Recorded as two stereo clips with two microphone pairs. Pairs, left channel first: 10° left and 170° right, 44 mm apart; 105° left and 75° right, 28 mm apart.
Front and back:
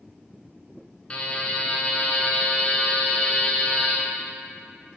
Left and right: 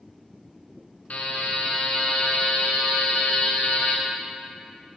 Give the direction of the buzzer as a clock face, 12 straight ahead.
9 o'clock.